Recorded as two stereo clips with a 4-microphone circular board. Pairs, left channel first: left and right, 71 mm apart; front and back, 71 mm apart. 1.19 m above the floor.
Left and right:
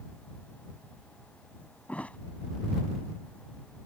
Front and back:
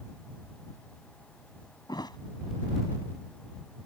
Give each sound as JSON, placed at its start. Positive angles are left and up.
{"t": 1.9, "sound": "a thud", "azimuth_deg": 20}